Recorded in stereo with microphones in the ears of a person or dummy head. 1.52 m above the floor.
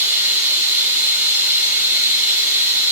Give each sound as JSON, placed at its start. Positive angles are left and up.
{"t": 0.0, "sound": "running water", "side_deg": -15, "distance_m": 3.5}